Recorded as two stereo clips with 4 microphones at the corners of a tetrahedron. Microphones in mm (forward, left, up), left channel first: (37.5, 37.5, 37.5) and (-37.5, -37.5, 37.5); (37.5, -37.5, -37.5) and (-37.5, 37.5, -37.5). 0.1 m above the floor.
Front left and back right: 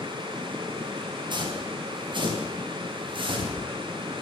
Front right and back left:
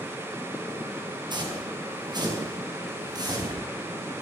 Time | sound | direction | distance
1.3 | footsteps | straight behind | 7.5 m